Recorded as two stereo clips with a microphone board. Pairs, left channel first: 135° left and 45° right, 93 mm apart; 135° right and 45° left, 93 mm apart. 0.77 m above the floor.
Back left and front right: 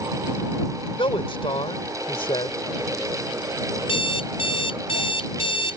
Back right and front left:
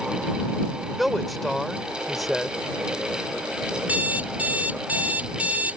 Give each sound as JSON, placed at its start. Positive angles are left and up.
{"t": 1.0, "sound": "a man speaking", "azimuth_deg": 135}
{"t": 3.8, "sound": "an alarm clock", "azimuth_deg": 120}